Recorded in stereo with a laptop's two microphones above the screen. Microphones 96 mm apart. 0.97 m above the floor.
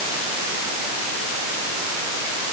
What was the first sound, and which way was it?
Only background noise.